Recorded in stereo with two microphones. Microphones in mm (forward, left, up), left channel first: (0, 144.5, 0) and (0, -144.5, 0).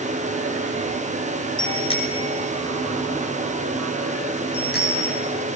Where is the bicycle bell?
15° left (ahead or behind), 6 m; by 5.3 s 35° left (ahead or behind), 9 m.